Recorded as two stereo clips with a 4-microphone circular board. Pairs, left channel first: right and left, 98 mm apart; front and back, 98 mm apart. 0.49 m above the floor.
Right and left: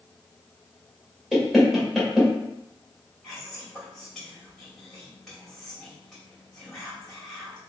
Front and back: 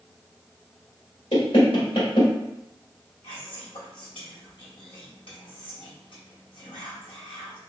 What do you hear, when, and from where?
1.3 s knocking: straight ahead, 1.5 m
3.2 s whispering: 5° right, 2 m